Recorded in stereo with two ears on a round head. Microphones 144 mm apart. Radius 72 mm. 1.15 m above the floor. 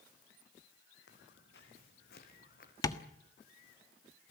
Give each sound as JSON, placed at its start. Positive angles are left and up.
{"t": 1.1, "sound": "footsteps", "side_deg": 75, "distance_m": 4.0}
{"t": 2.8, "sound": "tapping", "side_deg": 20, "distance_m": 1.5}